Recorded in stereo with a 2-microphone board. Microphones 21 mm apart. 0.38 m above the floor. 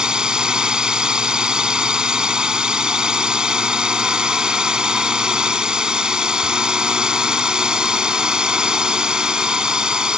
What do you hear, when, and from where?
0.0 s a drone: 40° right (ahead or behind)